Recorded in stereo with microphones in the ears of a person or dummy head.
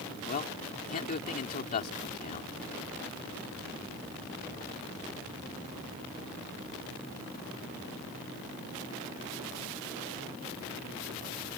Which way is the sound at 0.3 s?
45° left (ahead or behind).